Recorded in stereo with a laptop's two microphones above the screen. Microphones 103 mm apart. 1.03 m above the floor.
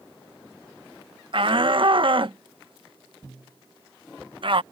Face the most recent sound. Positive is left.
turn(degrees=-55)  # may be behind; listen again after turning